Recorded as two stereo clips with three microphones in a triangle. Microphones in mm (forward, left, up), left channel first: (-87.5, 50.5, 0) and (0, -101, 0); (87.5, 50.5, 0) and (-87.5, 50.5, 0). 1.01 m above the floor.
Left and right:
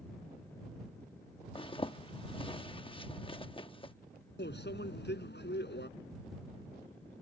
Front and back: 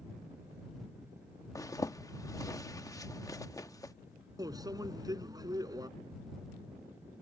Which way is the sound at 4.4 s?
110° left.